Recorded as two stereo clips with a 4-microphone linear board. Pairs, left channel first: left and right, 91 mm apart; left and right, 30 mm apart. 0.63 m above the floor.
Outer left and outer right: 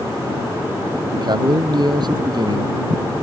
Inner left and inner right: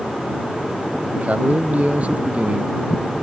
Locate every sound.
1.1 s a man speaking: 50° right (ahead or behind)